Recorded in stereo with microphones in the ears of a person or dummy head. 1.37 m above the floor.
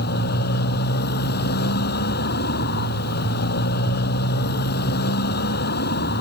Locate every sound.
0.0 s a motorcycle: 55° left (ahead or behind)